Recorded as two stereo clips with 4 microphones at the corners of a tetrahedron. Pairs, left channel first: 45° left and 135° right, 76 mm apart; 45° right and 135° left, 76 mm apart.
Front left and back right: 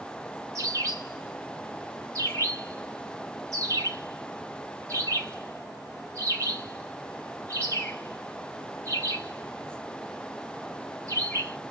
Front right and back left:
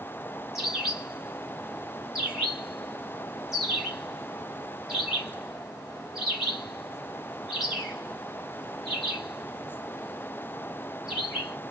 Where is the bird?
135° right, 1.9 m.